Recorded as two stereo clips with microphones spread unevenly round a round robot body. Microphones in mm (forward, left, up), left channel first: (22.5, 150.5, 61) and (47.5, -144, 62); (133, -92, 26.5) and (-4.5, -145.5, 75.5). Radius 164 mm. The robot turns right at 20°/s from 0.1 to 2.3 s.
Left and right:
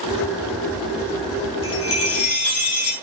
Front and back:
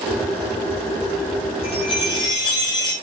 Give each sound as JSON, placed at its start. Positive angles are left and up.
{"t": 1.6, "sound": "a chime", "azimuth_deg": 55, "distance_m": 3.0}